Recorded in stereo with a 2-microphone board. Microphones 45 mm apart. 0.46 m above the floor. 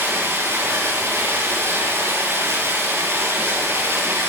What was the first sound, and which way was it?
Running water, 75° right (ahead or behind).